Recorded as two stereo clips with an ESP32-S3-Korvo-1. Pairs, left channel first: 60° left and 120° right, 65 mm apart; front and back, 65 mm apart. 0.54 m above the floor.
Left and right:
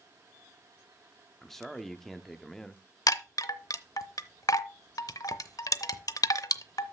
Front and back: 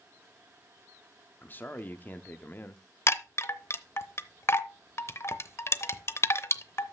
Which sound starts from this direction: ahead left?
A chime, at 3.1 s.